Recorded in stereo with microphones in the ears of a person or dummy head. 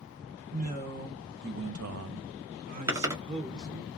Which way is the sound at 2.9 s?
15° right (ahead or behind).